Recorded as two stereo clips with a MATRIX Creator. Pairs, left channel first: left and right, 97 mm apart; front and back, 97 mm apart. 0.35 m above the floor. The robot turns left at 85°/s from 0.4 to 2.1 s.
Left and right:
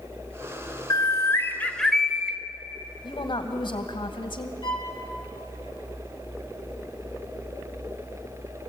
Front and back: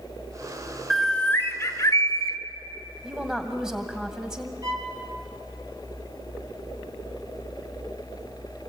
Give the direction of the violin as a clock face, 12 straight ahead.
8 o'clock.